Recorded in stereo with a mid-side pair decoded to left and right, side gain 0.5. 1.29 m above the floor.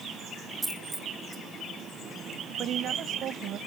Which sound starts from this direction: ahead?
A dropped coin, at 0.6 s.